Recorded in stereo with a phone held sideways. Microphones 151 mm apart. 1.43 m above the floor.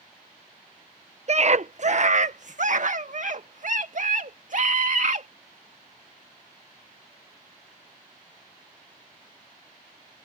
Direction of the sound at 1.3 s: 50° right (ahead or behind).